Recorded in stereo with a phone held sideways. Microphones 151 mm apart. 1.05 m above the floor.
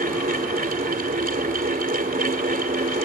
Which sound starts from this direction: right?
A fan, at 0.0 s.